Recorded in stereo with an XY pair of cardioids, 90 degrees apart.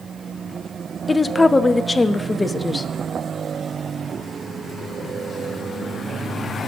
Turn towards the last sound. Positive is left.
turn(degrees=20)